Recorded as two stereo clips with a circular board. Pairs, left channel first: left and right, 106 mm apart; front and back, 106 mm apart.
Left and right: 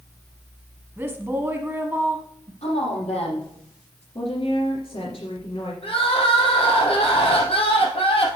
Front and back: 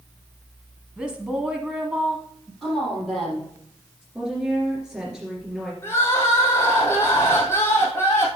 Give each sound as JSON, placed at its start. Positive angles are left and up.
{"t": 1.0, "sound": "a woman speaking", "azimuth_deg": -120, "distance_m": 1.2}
{"t": 2.6, "sound": "a woman speaking", "azimuth_deg": 90, "distance_m": 4.5}
{"t": 4.2, "sound": "a woman speaking", "azimuth_deg": 95, "distance_m": 2.5}
{"t": 5.8, "sound": "crying", "azimuth_deg": 65, "distance_m": 2.0}